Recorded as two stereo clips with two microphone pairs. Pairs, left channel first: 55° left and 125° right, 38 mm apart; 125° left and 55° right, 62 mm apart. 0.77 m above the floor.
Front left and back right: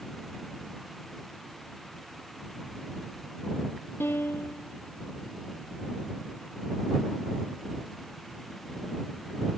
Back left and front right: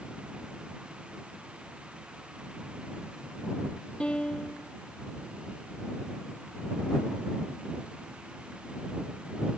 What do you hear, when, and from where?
4.0 s a piano: 50° left